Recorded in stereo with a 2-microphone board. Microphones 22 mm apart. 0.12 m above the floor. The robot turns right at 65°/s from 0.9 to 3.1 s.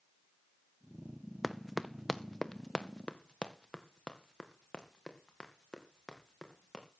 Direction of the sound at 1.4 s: Centre (ahead or behind).